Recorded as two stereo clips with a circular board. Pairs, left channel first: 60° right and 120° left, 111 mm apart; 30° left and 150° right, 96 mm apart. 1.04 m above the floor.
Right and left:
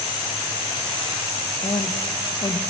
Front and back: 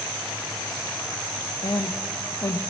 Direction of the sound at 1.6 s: 20° right.